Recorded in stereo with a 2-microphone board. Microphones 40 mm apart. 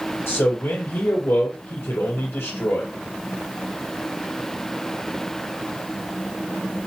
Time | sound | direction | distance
0.3 | a man speaking | 75° left (ahead or behind) | 4 m